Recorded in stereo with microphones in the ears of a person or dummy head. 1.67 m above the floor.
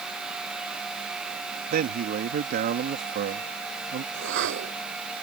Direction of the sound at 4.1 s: 65° right (ahead or behind).